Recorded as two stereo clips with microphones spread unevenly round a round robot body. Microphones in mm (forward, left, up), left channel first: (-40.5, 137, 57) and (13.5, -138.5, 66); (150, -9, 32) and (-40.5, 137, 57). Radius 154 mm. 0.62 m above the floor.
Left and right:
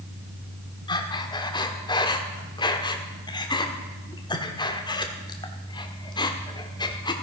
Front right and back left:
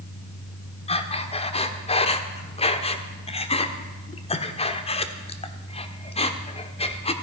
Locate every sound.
0.9 s breathing: 25° left, 1.4 m